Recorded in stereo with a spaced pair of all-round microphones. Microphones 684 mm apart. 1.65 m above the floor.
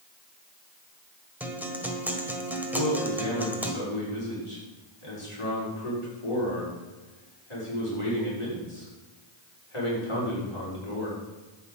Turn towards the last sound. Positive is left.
turn(degrees=45)  # may be behind; listen again after turning